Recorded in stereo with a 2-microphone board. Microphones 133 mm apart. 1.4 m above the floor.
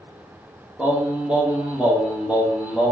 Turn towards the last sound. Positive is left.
turn(degrees=-10)  # may be behind; listen again after turning